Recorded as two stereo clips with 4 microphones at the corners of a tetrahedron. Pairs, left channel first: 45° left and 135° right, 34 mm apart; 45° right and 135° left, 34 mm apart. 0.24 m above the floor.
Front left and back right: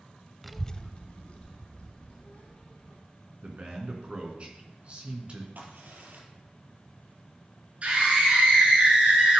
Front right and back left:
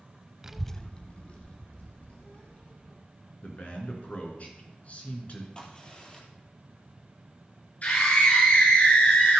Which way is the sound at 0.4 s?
145° left.